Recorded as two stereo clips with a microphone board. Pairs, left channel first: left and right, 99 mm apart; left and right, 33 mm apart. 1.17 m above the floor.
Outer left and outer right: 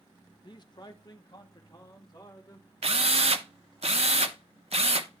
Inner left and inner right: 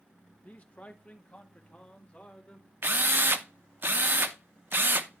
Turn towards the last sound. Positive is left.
turn(degrees=-85)